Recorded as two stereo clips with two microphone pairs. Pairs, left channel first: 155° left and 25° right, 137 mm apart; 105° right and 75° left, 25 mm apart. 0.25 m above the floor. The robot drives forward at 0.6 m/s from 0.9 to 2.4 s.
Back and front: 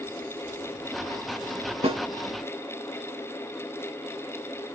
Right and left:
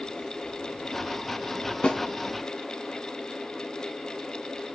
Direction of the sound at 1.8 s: 60° right.